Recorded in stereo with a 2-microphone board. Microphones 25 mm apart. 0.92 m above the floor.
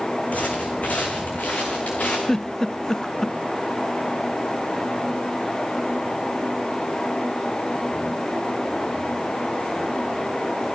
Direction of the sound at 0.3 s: 70° left (ahead or behind).